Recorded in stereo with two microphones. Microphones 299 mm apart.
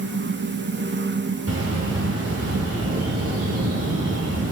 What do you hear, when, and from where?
1.5 s a bird: 55° right (ahead or behind), 2.5 m